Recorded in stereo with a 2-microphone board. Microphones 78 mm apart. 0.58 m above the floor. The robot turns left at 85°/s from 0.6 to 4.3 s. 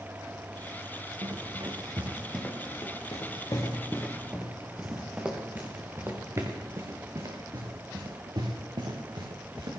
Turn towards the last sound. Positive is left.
turn(degrees=-70)  # may be behind; listen again after turning